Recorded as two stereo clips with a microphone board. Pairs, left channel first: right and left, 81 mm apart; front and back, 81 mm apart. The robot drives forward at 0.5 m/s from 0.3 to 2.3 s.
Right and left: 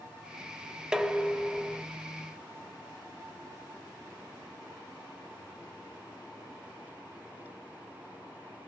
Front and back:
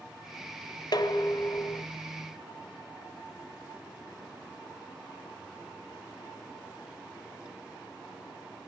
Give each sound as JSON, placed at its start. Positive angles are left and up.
{"t": 0.9, "sound": "dishes clattering", "azimuth_deg": 10, "distance_m": 0.9}